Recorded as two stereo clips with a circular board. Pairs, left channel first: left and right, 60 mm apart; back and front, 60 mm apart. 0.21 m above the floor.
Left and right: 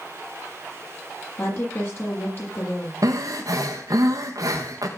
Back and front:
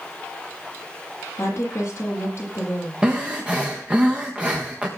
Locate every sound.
1.4 s a woman speaking: 135° left, 8 m
3.0 s breathing: 70° right, 3.5 m